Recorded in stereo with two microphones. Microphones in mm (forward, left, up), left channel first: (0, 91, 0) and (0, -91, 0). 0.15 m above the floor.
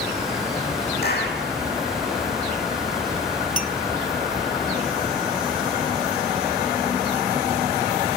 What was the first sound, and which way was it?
A clap, 60° left (ahead or behind).